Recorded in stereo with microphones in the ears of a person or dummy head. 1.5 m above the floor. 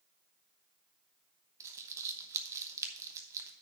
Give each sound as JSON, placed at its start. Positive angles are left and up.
{"t": 1.6, "sound": "crumpling", "side_deg": -15, "distance_m": 0.9}